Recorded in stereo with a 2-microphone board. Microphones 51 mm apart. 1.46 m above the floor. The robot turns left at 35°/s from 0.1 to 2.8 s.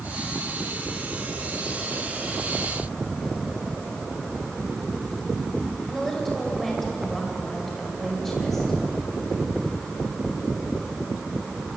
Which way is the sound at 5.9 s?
5° left (ahead or behind).